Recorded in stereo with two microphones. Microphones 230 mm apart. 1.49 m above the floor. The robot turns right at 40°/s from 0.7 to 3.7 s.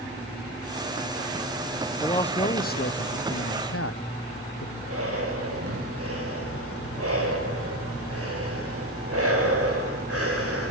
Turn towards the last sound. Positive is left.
turn(degrees=-90)